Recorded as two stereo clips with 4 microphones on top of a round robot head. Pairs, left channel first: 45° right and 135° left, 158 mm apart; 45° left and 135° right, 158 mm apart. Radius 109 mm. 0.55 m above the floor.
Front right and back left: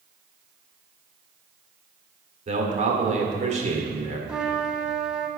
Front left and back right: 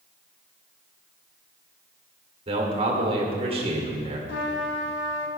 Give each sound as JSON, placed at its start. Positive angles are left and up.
{"t": 2.5, "sound": "a man speaking", "azimuth_deg": 175, "distance_m": 1.7}
{"t": 4.3, "sound": "a trumpet", "azimuth_deg": 50, "distance_m": 0.8}